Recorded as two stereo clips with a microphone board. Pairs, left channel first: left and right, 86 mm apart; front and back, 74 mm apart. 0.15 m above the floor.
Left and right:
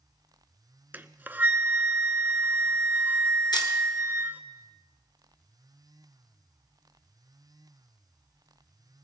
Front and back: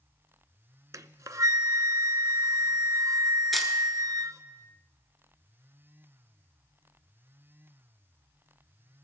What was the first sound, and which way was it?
A flute, 150° right.